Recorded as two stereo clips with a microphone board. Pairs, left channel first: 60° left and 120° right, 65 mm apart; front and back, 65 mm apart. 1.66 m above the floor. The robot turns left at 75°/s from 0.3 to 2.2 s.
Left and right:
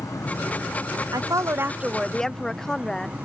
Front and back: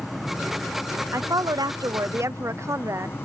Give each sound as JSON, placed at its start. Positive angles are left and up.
{"t": 0.0, "sound": "an insect", "azimuth_deg": 90}
{"t": 1.1, "sound": "a woman speaking", "azimuth_deg": -140}